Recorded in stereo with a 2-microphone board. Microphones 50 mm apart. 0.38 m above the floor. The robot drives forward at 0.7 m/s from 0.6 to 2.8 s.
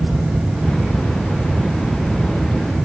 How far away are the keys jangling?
No keys jangling in this recording.